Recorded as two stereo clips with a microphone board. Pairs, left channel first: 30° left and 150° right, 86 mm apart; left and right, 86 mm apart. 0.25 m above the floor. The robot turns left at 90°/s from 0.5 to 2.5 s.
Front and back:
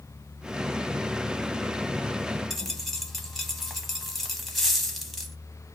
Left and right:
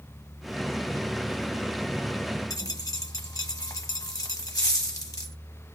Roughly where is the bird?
I don't hear a bird.